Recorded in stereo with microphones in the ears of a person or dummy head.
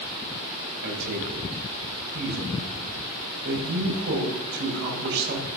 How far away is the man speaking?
About 7.5 m.